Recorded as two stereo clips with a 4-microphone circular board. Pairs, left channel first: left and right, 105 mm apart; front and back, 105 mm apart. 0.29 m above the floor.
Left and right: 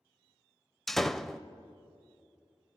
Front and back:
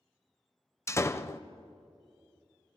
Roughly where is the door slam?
Ahead.